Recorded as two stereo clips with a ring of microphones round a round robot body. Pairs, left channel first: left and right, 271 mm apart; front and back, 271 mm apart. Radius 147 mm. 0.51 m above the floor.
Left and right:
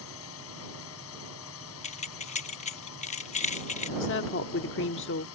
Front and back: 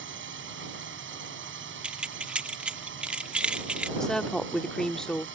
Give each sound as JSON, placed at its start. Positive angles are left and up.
{"t": 0.0, "sound": "a drone", "azimuth_deg": 135}
{"t": 1.8, "sound": "keys jangling", "azimuth_deg": 100}
{"t": 4.0, "sound": "a woman speaking", "azimuth_deg": 85}